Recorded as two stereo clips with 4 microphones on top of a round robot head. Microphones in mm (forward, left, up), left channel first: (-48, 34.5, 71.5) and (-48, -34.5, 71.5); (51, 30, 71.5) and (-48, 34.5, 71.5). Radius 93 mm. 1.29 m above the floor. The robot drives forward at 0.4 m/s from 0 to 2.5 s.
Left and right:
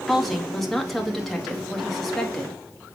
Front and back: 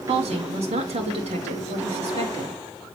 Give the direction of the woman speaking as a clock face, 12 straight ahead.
6 o'clock.